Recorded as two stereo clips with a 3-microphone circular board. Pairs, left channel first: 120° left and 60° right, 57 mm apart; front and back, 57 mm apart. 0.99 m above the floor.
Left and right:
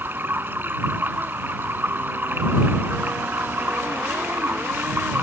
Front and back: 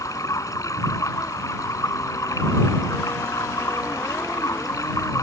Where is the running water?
5° right.